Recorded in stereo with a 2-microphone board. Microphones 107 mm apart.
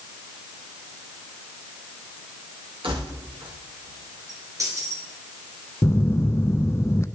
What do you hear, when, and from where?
2.8 s keys jangling: 60° right (ahead or behind), 5 m; by 5.1 s 25° right (ahead or behind), 4 m
5.8 s a phone buzzing: 25° left (ahead or behind), 0.5 m